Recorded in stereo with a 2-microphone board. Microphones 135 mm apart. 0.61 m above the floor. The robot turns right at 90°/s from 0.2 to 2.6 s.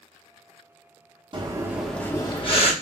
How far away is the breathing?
About 0.8 m.